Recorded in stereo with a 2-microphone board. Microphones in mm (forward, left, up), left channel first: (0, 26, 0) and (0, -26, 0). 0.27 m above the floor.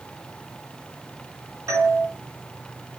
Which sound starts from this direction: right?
A doorbell, at 1.7 s.